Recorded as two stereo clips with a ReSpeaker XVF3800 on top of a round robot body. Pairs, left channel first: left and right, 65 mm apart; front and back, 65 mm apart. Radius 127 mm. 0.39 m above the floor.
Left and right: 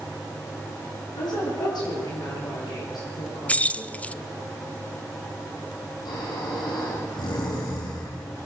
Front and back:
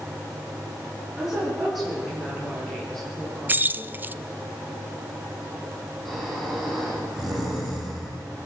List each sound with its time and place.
1.1 s a woman speaking: 90° left, 8.5 m; by 4.0 s 70° left, 8.5 m
3.5 s keys jangling: 145° left, 0.7 m
6.0 s snoring: 90° left, 9.5 m